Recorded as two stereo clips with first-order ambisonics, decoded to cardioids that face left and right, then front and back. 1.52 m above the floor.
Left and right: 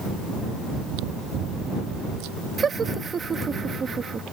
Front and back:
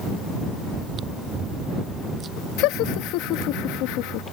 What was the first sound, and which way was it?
Chewing, 115° right.